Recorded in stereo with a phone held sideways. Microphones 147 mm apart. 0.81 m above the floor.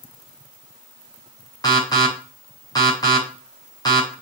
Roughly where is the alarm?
Left.